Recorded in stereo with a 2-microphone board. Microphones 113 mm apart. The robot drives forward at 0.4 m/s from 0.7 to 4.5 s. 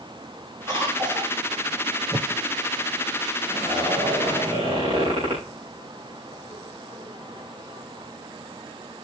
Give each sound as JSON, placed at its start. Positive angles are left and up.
{"t": 0.7, "sound": "a cough", "side_deg": -40, "distance_m": 6.5}
{"t": 2.1, "sound": "a whoosh", "side_deg": -30, "distance_m": 0.7}
{"t": 3.5, "sound": "a zipper", "side_deg": -50, "distance_m": 8.5}